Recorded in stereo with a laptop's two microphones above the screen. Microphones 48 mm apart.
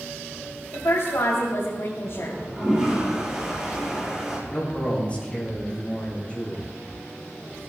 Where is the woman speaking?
75° left (ahead or behind), 3 m.